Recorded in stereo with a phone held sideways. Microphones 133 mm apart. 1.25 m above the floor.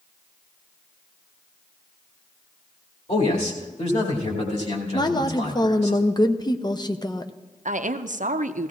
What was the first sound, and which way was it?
A man speaking, 60° left (ahead or behind).